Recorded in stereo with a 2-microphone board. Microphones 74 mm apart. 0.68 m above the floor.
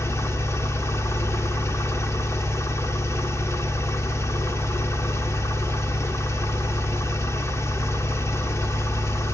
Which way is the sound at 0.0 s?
40° left (ahead or behind).